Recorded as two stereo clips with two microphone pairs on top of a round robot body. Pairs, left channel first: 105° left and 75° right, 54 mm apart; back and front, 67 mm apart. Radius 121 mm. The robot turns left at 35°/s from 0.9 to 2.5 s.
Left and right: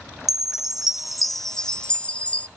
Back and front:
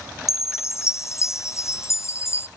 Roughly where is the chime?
Behind.